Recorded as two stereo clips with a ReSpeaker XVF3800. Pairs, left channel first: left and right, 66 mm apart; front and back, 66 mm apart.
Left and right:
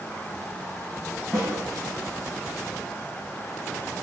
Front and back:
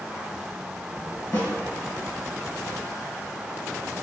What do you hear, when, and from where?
1.3 s a snare drum: straight ahead, 2.0 m